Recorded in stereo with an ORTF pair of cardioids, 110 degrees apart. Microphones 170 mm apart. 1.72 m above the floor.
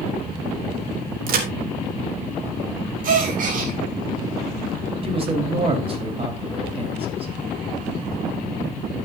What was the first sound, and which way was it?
A crack, 60° right.